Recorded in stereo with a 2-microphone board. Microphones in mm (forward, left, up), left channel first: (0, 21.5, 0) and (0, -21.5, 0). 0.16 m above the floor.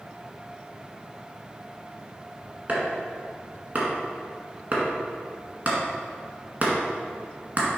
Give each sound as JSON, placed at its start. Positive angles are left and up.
{"t": 2.7, "sound": "chopping", "side_deg": -35, "distance_m": 1.6}